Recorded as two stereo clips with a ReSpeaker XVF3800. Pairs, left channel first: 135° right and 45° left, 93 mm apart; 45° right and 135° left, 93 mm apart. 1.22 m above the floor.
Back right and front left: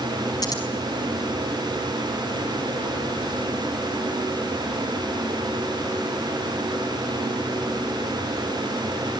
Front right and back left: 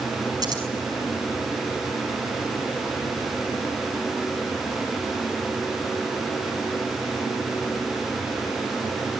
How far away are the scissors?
About 5.5 m.